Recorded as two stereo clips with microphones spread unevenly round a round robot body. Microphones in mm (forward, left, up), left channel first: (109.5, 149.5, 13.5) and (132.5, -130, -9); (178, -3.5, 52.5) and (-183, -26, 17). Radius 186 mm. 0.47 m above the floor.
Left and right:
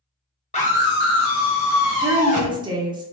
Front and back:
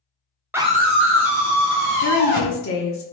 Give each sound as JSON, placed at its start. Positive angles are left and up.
{"t": 0.5, "sound": "a scream", "azimuth_deg": 125, "distance_m": 0.7}
{"t": 2.0, "sound": "a woman speaking", "azimuth_deg": -30, "distance_m": 0.9}